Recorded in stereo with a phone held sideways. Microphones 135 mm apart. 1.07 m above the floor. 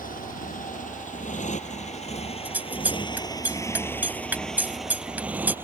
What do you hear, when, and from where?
0.0 s a motorcycle: 75° left (ahead or behind); by 5.7 s 15° right (ahead or behind)
2.5 s scissors: 10° right (ahead or behind)